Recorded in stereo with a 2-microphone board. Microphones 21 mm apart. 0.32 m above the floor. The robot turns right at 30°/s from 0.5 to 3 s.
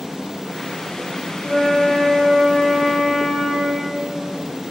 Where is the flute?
85° right, 8 m; by 3.9 s 35° right, 8 m.